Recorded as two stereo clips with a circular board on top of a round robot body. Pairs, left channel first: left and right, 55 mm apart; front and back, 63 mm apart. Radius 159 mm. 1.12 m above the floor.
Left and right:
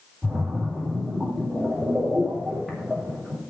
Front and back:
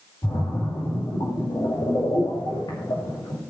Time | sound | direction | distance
0.2 | a splash | 15° right | 5.5 m